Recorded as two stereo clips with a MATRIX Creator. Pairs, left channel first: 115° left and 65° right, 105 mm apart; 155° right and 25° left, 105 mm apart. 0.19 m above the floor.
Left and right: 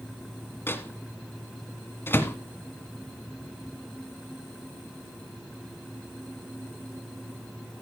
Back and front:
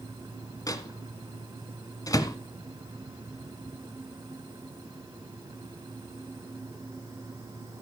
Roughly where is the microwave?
Behind.